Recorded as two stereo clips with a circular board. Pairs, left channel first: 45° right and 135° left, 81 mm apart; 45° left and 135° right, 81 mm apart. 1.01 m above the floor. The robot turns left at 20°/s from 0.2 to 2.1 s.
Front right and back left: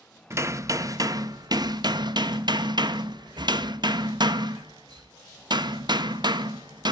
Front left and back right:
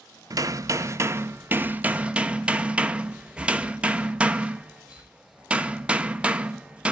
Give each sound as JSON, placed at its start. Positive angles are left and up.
{"t": 0.3, "sound": "hammering", "azimuth_deg": -175, "distance_m": 0.9}